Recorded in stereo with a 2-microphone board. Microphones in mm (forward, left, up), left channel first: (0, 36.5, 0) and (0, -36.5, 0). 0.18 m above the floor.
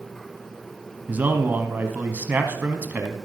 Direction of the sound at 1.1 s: 25° right (ahead or behind).